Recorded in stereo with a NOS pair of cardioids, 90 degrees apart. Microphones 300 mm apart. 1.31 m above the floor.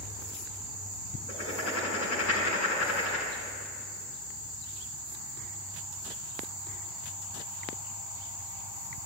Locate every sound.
1.3 s writing: 60° left, 6 m